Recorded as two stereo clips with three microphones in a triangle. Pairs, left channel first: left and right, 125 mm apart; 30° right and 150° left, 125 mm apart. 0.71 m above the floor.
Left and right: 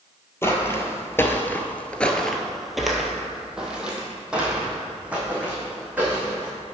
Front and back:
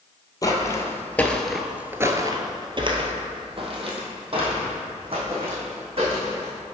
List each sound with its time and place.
0.4 s footsteps: 25° left, 1.1 m; by 6.5 s 170° right, 3 m